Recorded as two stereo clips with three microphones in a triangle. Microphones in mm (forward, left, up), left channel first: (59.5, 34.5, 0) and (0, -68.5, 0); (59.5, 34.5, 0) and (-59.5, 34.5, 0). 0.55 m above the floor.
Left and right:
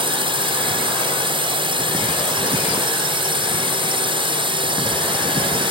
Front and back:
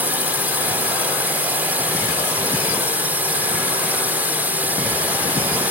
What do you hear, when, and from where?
0.0 s a drone: 110° right